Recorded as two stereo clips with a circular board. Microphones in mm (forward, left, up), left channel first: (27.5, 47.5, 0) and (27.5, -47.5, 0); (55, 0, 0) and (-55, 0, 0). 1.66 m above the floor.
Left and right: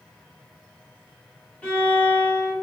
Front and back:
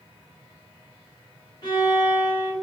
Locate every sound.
1.6 s a violin: 20° left, 1.1 m